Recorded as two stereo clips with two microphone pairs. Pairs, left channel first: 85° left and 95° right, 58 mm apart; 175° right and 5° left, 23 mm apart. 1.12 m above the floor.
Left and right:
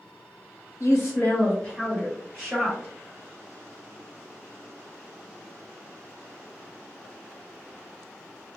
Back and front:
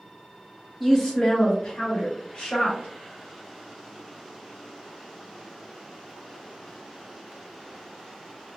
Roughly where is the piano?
I don't hear a piano.